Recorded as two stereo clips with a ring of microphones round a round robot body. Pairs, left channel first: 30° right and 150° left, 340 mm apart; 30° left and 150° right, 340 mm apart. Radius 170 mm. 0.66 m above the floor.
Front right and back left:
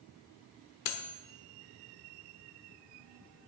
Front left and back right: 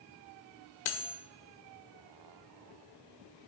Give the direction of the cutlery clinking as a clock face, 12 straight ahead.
12 o'clock.